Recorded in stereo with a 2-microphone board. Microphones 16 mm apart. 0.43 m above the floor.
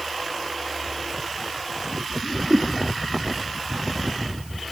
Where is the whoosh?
55° right (ahead or behind).